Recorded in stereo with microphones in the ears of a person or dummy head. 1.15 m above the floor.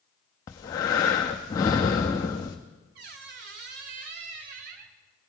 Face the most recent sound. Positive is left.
turn(degrees=-50)  # may be behind; listen again after turning